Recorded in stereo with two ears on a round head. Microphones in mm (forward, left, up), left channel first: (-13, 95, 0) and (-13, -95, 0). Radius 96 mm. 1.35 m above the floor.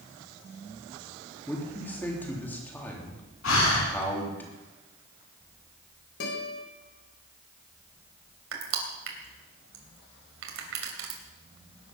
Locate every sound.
1.5 s a man speaking: 10° left (ahead or behind), 3 m
3.4 s breathing: 75° left (ahead or behind), 4.5 m
6.2 s a guitar: 60° left (ahead or behind), 4 m
8.5 s crushing: 75° right (ahead or behind), 3 m